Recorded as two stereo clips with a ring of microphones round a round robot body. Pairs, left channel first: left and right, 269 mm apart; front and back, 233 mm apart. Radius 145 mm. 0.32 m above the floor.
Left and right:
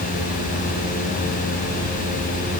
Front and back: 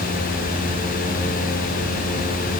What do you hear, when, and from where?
Only background noise.